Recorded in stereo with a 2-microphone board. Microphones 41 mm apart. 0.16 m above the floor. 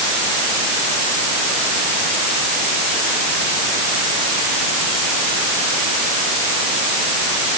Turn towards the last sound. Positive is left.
No sound to turn to.